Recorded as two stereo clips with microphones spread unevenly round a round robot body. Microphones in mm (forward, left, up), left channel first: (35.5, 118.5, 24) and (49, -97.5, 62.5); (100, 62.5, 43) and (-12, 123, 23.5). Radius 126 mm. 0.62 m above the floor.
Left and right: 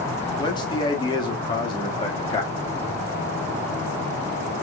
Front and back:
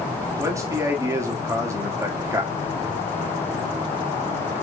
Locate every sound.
0.4 s a man speaking: 125° left, 1.3 m